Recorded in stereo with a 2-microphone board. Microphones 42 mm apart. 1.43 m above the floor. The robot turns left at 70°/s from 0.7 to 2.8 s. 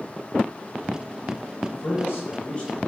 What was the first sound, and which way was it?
A man speaking, 95° left.